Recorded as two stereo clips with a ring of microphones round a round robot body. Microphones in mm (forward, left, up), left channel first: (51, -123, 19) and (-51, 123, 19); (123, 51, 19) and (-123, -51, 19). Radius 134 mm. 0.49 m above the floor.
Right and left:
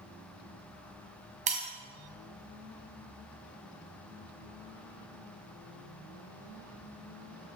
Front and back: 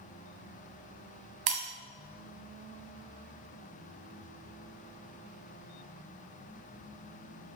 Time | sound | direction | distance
1.5 | breaking glass | straight behind | 1.6 m